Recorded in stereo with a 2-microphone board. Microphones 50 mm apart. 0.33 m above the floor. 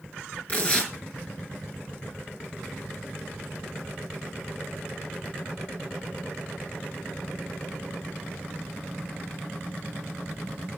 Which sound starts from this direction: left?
Tearing paper, at 0.5 s.